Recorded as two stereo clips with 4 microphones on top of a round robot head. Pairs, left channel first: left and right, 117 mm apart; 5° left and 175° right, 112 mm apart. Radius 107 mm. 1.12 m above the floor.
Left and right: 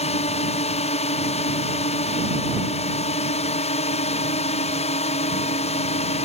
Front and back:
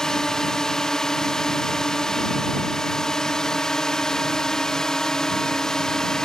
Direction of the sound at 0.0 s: 90° left.